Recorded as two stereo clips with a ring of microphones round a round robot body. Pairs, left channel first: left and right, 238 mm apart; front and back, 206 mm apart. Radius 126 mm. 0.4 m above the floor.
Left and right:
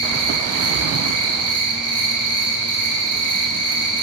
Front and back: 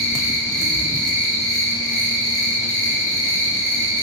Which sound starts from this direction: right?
An insect, at 0.0 s.